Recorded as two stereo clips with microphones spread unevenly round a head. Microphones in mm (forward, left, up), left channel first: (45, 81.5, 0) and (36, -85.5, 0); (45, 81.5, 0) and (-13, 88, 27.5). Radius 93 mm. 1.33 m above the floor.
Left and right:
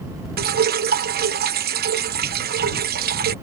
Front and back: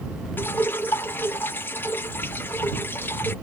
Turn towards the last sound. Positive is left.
turn(degrees=-65)